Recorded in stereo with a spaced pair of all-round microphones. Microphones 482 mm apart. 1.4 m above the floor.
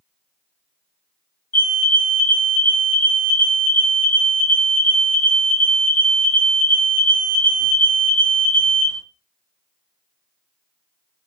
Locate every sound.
1.5 s a fire alarm: 70° left (ahead or behind), 3 m